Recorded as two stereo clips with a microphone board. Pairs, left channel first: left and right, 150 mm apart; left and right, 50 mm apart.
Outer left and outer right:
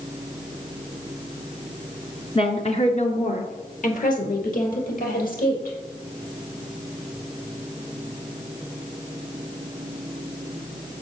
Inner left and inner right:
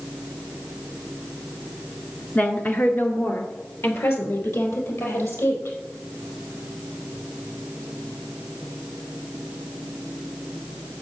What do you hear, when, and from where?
2.4 s a woman speaking: 35° left (ahead or behind), 1.5 m; by 5.8 s 65° left (ahead or behind), 4.5 m